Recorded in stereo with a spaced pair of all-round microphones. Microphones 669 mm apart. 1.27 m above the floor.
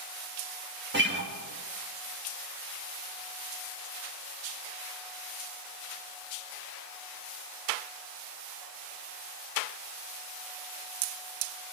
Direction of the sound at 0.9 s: 15° right (ahead or behind).